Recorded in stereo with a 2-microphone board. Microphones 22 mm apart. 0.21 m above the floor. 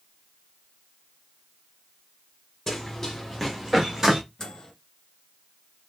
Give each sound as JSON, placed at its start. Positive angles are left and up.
{"t": 2.7, "sound": "running footsteps", "side_deg": 15, "distance_m": 2.5}
{"t": 4.4, "sound": "a microwave", "side_deg": 25, "distance_m": 2.0}